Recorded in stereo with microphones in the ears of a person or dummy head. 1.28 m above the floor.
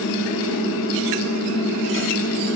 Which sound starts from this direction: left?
A fan, at 0.0 s.